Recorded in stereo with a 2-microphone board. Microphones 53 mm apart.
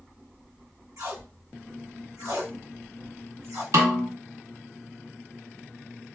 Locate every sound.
1.0 s tape being pulled: 80° right, 1.3 m
3.7 s a snare drum: 85° right, 1.6 m